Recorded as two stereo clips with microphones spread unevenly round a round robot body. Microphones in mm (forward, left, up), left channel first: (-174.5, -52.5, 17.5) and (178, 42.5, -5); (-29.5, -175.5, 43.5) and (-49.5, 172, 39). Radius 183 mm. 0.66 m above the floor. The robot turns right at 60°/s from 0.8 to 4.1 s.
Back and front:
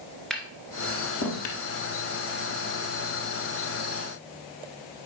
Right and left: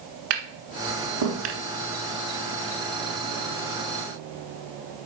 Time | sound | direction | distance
0.3 | tapping | 110° left | 1.5 m